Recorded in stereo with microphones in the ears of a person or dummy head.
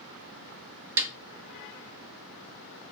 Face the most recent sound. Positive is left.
turn(degrees=-10)  # may be behind; listen again after turning